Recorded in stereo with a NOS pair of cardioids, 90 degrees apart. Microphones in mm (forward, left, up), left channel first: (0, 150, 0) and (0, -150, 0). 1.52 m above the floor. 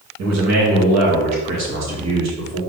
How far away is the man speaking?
About 2.5 m.